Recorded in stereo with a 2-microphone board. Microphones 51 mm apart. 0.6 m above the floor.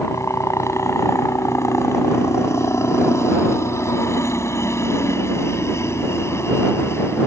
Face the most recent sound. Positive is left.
turn(degrees=55)  # may be behind; listen again after turning